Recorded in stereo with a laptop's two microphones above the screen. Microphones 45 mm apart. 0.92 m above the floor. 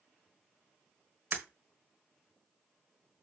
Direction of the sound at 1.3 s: 45° right (ahead or behind).